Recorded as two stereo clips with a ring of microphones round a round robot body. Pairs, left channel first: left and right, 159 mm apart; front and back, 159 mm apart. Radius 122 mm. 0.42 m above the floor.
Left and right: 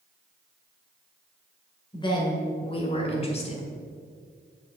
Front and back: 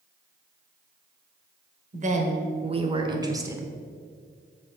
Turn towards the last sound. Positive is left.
turn(degrees=105)